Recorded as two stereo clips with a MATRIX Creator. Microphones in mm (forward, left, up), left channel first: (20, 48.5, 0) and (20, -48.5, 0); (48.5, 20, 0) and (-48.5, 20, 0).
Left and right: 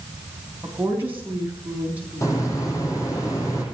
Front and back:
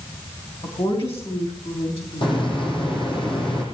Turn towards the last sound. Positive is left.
turn(degrees=30)